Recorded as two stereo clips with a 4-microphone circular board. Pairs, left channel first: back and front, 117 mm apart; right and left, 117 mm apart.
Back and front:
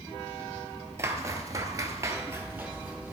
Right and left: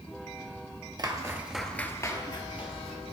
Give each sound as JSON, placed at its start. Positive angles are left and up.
{"t": 1.0, "sound": "footsteps", "azimuth_deg": 55, "distance_m": 1.2}